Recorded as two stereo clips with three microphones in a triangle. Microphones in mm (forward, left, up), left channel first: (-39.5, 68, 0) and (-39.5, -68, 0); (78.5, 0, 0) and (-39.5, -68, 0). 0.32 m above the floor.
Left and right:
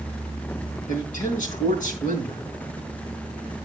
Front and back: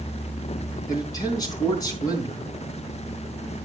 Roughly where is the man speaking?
Left.